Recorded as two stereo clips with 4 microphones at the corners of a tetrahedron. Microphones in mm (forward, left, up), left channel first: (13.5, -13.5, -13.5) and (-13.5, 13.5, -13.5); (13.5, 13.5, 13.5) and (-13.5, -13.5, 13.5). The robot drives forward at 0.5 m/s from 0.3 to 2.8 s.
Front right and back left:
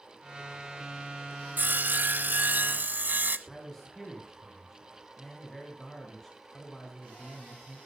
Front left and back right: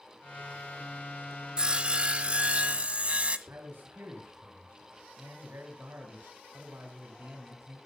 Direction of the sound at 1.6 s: 160° left.